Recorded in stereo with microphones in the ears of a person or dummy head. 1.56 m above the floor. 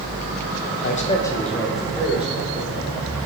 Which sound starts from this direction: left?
A man speaking, at 0.8 s.